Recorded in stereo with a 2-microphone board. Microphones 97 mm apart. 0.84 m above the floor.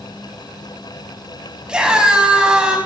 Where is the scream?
10° right (ahead or behind), 6 m.